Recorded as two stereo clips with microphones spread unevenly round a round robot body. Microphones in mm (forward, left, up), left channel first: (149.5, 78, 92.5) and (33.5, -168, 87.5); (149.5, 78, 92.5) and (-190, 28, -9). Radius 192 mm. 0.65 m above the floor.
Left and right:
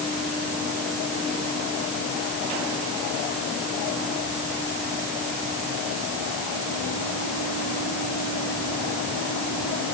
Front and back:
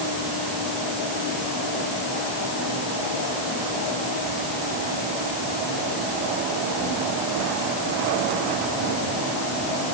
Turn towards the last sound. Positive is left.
No sound to turn to.